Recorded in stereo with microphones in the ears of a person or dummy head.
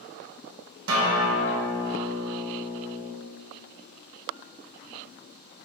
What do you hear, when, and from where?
0.9 s a guitar: 70° right (ahead or behind), 2.5 m